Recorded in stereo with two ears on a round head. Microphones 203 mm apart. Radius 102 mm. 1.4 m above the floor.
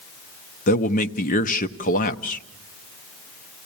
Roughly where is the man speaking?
Left.